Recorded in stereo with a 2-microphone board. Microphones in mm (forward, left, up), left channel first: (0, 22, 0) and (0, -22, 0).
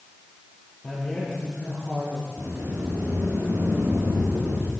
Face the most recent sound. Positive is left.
turn(degrees=-60)  # may be behind; listen again after turning